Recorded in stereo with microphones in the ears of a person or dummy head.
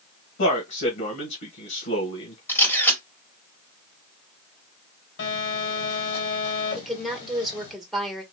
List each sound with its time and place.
0.4 s a man speaking: 65° left (ahead or behind), 1.4 m
2.5 s a camera shutter: 10° left (ahead or behind), 1.8 m
5.2 s a phone buzzing: 60° left (ahead or behind), 3 m
6.8 s a woman speaking: 5° right (ahead or behind), 1.7 m